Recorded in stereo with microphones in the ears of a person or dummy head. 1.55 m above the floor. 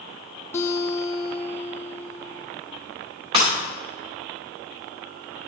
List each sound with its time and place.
0.5 s a guitar: 15° left (ahead or behind), 1.0 m
3.3 s breaking glass: 30° right (ahead or behind), 2.5 m